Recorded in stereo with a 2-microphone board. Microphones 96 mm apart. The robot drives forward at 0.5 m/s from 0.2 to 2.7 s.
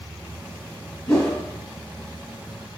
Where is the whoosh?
15° left (ahead or behind), 1.7 m.